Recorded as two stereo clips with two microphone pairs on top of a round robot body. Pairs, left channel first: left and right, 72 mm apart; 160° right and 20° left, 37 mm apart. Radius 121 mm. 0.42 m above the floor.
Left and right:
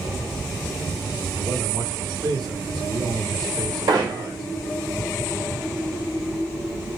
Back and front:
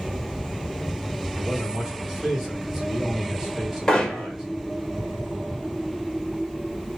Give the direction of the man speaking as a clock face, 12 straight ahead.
2 o'clock.